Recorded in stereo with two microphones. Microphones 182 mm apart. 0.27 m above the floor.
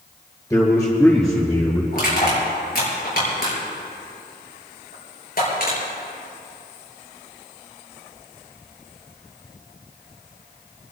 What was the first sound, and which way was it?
A man speaking, 15° left (ahead or behind).